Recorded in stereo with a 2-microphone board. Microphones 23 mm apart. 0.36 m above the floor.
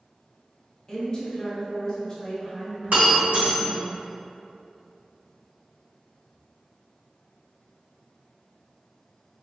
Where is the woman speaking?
20° left (ahead or behind), 1.1 m.